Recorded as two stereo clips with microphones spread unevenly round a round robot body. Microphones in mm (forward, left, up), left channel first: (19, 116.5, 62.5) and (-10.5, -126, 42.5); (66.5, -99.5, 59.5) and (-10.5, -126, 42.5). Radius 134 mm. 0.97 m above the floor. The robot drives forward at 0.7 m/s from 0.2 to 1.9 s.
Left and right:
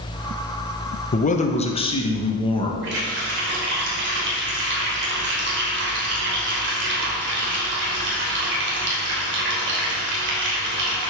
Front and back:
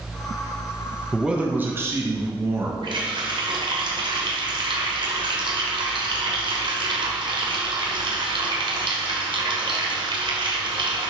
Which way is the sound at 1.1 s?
130° left.